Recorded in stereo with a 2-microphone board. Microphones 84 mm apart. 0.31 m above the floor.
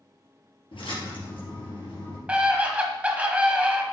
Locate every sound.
0.7 s a splash: 80° left, 3.5 m
2.3 s a scream: 15° right (ahead or behind), 1.6 m